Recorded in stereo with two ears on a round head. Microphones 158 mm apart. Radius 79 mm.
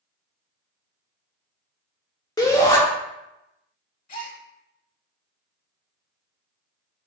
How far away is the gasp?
About 0.9 m.